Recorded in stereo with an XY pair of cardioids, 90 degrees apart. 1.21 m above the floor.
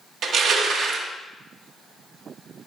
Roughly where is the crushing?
Ahead right.